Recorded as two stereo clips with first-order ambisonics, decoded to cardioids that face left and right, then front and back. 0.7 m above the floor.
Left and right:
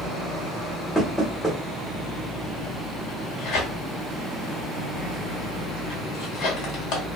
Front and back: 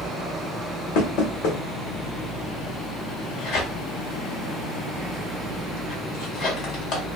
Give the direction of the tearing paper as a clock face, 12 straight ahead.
10 o'clock.